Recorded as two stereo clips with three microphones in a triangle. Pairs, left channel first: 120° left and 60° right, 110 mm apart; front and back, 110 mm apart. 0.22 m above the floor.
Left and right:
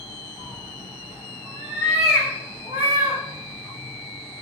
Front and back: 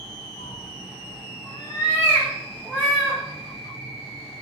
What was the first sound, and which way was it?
A cat meowing, straight ahead.